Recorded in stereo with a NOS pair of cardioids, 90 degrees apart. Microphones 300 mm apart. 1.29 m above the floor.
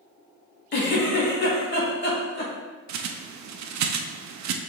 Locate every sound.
0.7 s a giggle: 35° left, 1.9 m
2.9 s a bird: 65° right, 0.6 m